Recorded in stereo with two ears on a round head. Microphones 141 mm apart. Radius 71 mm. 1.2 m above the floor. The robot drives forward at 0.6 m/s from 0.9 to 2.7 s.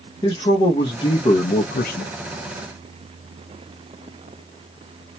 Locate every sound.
0.2 s a man speaking: 25° left (ahead or behind), 1.0 m; by 2.1 s 70° left (ahead or behind), 0.5 m